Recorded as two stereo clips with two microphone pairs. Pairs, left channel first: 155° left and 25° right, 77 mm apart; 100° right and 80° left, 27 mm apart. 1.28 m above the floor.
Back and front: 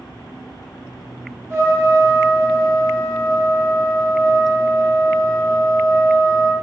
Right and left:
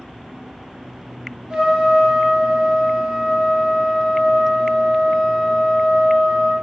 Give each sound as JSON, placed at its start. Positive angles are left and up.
{"t": 1.5, "sound": "a trumpet", "azimuth_deg": 30, "distance_m": 0.9}